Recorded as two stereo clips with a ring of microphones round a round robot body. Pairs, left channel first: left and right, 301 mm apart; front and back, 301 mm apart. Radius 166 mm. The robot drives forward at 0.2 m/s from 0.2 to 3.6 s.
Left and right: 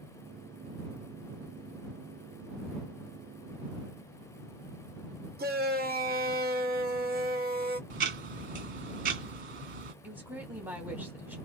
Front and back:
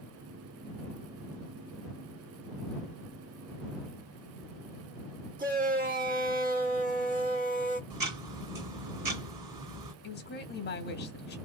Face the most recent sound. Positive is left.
turn(degrees=-10)